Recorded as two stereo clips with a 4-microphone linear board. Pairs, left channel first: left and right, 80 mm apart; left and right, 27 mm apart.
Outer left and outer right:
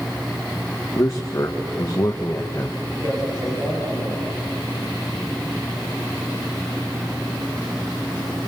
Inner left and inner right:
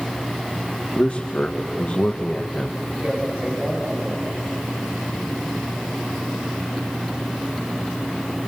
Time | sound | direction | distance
0.9 | a man speaking | 40° left (ahead or behind) | 1.5 m
3.0 | a man speaking | 55° right (ahead or behind) | 7.5 m